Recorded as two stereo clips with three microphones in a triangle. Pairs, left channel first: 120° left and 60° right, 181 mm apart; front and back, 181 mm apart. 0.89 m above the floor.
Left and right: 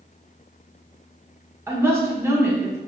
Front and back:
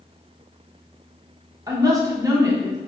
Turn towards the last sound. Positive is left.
turn(degrees=-125)